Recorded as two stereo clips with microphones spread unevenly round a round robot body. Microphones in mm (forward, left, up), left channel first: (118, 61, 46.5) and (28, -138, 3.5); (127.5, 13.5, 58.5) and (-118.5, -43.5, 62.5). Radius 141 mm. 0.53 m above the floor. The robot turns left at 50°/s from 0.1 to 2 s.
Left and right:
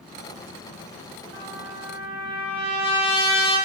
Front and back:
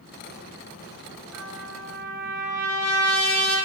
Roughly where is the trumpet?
Ahead left.